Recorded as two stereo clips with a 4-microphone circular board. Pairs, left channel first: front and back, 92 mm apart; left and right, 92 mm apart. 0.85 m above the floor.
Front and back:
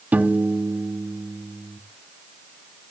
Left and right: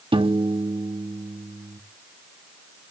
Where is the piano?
110° right, 1.0 m.